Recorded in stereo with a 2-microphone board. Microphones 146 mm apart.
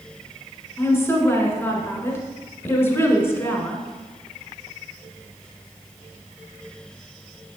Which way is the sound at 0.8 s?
15° left (ahead or behind).